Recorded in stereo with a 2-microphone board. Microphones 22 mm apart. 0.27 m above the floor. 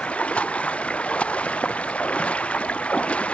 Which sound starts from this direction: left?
Running water, at 0.0 s.